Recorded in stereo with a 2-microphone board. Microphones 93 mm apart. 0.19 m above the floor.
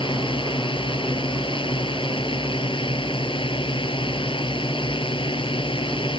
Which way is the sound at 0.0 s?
65° left (ahead or behind).